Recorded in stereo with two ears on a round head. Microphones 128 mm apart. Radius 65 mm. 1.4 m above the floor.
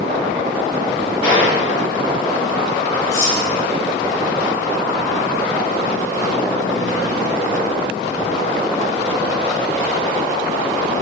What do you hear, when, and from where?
1.2 s a gunshot: 35° left (ahead or behind), 2.5 m
3.1 s cutlery clinking: 70° left (ahead or behind), 2 m